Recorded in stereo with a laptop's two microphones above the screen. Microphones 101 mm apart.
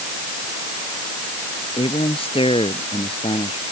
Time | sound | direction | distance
1.8 | a man speaking | 65° left (ahead or behind) | ?